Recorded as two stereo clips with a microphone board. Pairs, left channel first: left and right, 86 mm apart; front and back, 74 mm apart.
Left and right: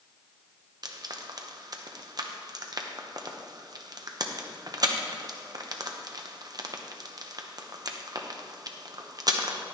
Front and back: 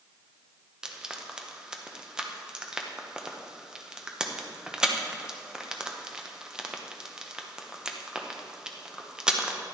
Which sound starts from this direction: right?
Frying, at 0.8 s.